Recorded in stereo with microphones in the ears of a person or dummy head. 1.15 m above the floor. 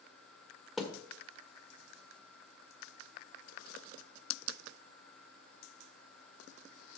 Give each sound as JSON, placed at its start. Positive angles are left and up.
{"t": 0.8, "sound": "a thud", "side_deg": 0, "distance_m": 1.5}